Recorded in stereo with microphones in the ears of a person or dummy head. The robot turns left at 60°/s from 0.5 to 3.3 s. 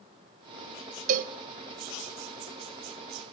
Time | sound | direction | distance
1.1 | a cowbell | 45° right (ahead or behind) | 0.9 m